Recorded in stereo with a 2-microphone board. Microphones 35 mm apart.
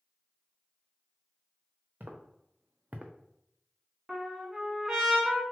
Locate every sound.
2.0 s footsteps: 80° right, 0.9 m; by 3.1 s 35° right (ahead or behind), 0.6 m
4.1 s a trumpet: 15° right (ahead or behind), 0.9 m